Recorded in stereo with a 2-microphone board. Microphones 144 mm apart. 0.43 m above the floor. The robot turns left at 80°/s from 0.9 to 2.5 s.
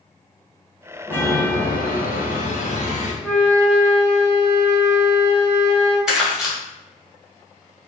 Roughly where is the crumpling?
Centre.